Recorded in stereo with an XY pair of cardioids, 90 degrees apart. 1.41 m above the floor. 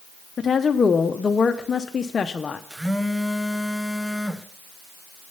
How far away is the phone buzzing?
About 0.8 m.